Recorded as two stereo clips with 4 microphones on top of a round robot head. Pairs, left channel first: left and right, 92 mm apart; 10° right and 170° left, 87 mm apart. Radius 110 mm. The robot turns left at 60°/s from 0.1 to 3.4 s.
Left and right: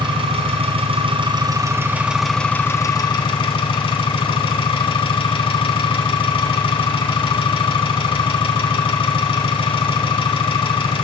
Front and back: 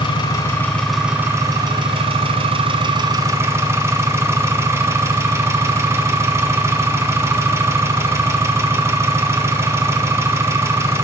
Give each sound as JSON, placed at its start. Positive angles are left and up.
{"t": 0.0, "sound": "an engine running", "azimuth_deg": -50, "distance_m": 1.9}